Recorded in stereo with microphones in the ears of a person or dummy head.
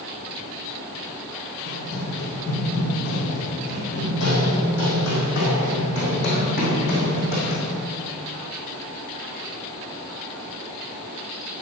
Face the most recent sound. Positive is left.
turn(degrees=50)  # may be behind; listen again after turning